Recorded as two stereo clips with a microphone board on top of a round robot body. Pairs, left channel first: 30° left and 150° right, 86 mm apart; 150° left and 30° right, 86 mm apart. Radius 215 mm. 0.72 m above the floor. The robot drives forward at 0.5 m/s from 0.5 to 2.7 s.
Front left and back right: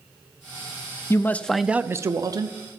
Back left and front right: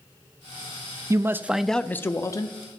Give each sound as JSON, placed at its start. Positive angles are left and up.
{"t": 1.1, "sound": "a man speaking", "azimuth_deg": -10, "distance_m": 0.6}